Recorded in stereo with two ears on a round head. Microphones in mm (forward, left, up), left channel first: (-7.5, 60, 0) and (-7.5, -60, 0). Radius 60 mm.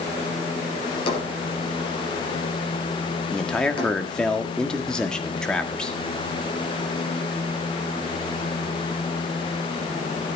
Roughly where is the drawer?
Left.